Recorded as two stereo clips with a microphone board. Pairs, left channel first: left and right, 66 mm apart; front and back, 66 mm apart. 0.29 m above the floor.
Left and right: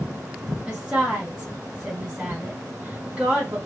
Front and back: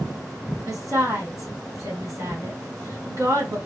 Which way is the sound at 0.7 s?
165° right.